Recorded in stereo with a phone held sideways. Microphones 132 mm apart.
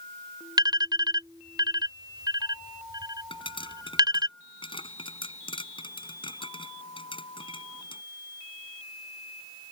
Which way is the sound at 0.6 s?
30° right (ahead or behind).